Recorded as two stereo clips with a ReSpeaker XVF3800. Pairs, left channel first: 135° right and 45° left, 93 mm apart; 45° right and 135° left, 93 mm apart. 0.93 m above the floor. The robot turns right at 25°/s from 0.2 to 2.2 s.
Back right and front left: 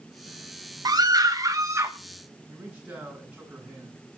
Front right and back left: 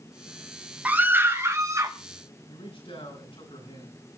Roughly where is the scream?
Ahead left.